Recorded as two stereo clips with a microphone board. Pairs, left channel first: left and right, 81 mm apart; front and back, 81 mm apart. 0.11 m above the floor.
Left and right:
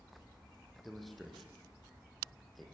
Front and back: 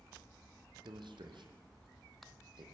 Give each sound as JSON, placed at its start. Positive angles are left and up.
{"t": 0.8, "sound": "a man speaking", "azimuth_deg": 180, "distance_m": 4.0}